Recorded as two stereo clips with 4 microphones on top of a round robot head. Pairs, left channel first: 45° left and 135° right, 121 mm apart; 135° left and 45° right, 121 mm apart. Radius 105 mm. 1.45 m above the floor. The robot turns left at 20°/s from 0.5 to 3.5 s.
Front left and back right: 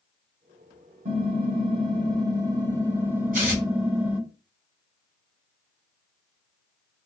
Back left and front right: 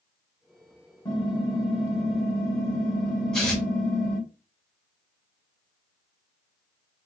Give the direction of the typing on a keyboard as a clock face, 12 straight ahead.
6 o'clock.